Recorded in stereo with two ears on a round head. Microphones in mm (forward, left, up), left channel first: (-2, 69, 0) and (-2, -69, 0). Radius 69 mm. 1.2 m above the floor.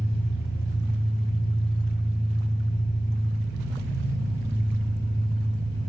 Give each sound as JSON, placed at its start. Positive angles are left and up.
{"t": 0.0, "sound": "an engine running", "side_deg": 75, "distance_m": 8.5}